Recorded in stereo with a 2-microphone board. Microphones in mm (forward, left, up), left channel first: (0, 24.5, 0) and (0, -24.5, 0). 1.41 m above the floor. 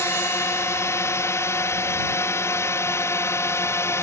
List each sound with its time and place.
0.0 s a drone: 65° left (ahead or behind); by 4.0 s 60° left (ahead or behind)